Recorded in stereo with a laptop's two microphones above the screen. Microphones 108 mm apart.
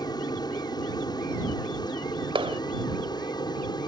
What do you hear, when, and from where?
0.0 s an aircraft: 40° left (ahead or behind)
2.4 s a clap: 55° right (ahead or behind)